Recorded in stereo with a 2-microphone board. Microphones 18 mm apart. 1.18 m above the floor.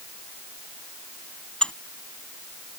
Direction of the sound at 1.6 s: 65° left (ahead or behind).